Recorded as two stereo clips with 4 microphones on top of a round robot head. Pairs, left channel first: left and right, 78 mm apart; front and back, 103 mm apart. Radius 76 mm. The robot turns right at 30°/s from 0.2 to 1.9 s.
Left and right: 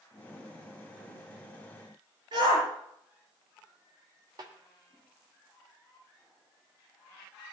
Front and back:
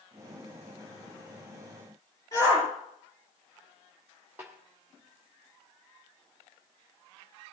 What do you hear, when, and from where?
2.3 s a shout: 65° right, 6 m
4.4 s a snare drum: 105° right, 1.4 m